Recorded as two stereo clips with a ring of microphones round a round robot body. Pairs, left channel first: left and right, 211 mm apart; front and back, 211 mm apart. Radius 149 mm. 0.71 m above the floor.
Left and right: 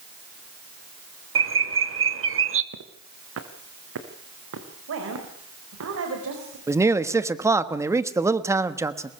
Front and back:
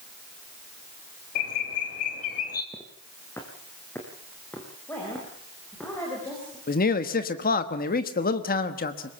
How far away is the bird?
About 1.2 m.